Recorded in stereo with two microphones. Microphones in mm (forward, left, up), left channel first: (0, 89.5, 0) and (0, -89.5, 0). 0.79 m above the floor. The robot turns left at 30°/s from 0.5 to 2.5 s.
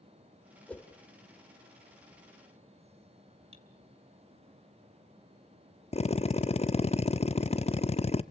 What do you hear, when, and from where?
0.7 s a whoosh: 5° left (ahead or behind), 1.8 m; by 0.9 s 15° left (ahead or behind), 1.8 m
3.5 s cutlery clinking: 35° right (ahead or behind), 2 m
5.9 s a drill: 35° left (ahead or behind), 0.6 m